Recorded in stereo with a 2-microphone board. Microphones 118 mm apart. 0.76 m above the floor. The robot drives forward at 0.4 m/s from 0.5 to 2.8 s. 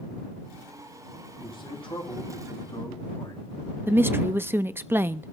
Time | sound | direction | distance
1.4 | a man speaking | 45° left (ahead or behind) | 8 m
3.9 | a woman speaking | 20° right (ahead or behind) | 0.6 m